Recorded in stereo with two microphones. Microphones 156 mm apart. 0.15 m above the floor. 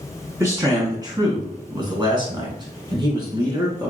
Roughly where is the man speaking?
Right.